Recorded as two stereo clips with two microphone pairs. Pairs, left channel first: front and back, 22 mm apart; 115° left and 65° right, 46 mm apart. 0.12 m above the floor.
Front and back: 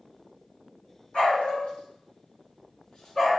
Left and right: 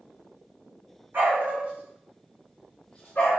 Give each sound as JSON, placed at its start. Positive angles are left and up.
{"t": 1.1, "sound": "a dog barking", "azimuth_deg": -20, "distance_m": 2.5}